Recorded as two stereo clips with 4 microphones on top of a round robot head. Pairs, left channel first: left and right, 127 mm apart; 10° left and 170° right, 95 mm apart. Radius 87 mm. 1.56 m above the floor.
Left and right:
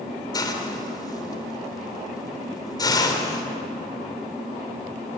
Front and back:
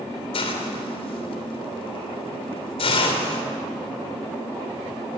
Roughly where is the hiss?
Ahead left.